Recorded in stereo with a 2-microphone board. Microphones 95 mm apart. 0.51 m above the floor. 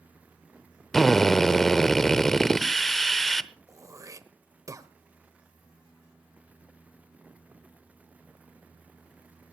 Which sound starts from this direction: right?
Throat clearing, at 3.7 s.